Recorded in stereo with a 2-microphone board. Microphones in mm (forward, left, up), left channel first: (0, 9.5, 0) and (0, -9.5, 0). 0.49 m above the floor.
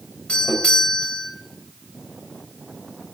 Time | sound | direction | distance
0.3 | a doorbell | 65° left (ahead or behind) | 3 m